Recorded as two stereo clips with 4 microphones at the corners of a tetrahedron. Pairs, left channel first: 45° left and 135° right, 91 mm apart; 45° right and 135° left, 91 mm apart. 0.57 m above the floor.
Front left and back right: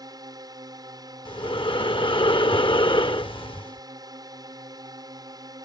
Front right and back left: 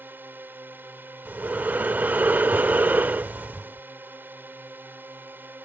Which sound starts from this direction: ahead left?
Breathing, at 1.2 s.